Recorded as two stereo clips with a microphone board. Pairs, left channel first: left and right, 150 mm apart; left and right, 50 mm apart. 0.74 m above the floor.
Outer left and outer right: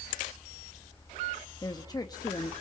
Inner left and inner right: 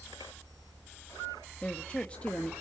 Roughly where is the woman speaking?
Left.